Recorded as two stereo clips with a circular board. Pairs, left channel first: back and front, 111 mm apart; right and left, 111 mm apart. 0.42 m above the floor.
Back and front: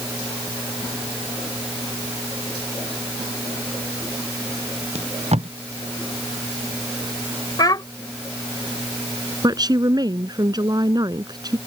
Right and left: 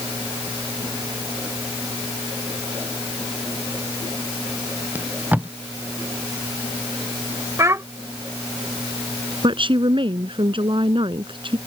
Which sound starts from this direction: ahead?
Tape being pulled, at 5.0 s.